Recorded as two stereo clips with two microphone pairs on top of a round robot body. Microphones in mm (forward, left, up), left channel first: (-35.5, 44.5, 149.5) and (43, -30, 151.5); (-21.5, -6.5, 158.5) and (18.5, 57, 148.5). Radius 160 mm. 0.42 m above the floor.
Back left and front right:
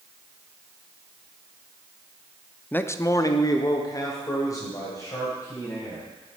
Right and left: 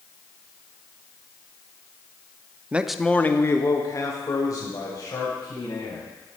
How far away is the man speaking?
About 0.7 m.